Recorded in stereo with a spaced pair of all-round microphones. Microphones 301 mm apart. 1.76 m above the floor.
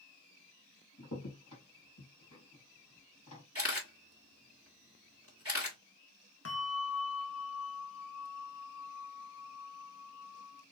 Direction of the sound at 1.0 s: 75° left (ahead or behind).